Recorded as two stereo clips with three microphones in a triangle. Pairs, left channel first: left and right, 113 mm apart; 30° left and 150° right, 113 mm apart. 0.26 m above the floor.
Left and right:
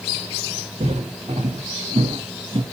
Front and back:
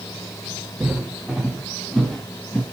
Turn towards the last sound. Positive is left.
turn(degrees=-45)